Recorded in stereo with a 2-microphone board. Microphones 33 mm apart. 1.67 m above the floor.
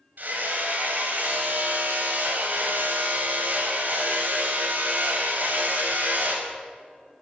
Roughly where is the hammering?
Right.